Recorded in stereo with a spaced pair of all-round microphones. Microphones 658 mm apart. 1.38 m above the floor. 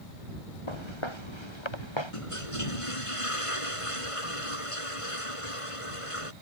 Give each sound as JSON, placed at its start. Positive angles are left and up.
{"t": 0.7, "sound": "footsteps", "side_deg": 45}
{"t": 2.1, "sound": "a toilet flushing", "side_deg": 50}